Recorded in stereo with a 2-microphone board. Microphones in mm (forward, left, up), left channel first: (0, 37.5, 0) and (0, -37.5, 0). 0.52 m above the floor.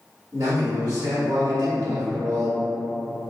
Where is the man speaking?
50° right (ahead or behind), 1.7 m.